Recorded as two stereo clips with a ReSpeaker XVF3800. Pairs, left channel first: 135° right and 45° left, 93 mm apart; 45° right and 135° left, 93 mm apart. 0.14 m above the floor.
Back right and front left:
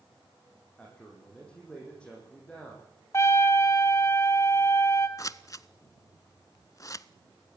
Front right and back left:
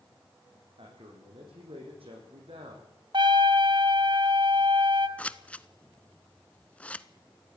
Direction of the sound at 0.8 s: 145° left.